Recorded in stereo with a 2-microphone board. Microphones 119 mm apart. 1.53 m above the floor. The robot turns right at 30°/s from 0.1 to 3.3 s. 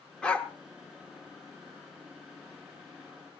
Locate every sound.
0.2 s a dog barking: 10° left (ahead or behind), 1.3 m; by 0.5 s 15° left (ahead or behind), 1.3 m